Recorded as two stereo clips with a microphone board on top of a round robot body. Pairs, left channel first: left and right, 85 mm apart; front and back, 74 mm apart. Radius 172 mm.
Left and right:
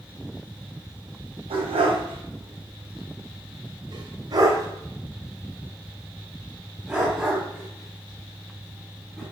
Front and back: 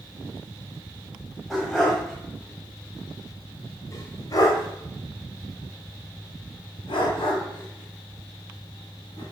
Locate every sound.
1.5 s a dog barking: 90° right, 2 m; by 9.2 s 10° left, 3.5 m